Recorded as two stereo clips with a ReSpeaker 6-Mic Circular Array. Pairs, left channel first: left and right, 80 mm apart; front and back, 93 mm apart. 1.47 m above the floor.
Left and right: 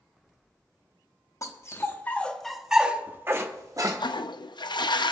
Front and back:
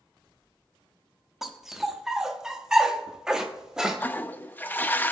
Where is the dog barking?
95° left, 1.1 m; by 4.0 s 95° right, 1.3 m.